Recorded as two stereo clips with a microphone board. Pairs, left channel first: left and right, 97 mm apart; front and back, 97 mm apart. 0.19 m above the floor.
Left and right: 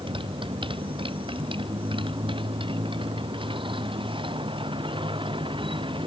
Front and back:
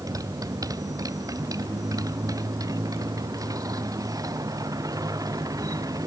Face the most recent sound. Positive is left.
turn(degrees=-125)